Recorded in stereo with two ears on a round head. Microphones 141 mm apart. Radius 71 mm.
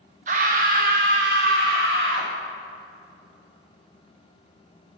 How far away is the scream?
About 0.9 m.